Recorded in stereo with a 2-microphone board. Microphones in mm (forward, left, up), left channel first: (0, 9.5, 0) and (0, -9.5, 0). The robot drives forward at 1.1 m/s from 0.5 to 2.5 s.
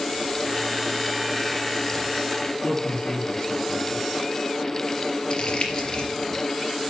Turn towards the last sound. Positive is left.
turn(degrees=45)  # may be behind; listen again after turning